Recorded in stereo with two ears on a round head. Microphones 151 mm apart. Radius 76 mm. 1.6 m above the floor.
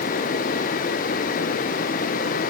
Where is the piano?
No piano in this recording.